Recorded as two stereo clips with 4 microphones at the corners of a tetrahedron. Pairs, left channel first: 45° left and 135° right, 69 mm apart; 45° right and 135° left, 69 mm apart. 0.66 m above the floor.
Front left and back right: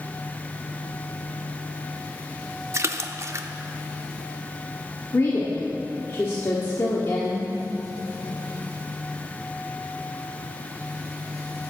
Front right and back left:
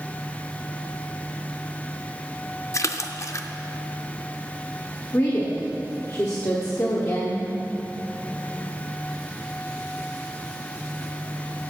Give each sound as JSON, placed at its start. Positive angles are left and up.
{"t": 2.7, "sound": "a splash", "azimuth_deg": -90, "distance_m": 0.5}
{"t": 5.1, "sound": "a woman speaking", "azimuth_deg": -5, "distance_m": 1.1}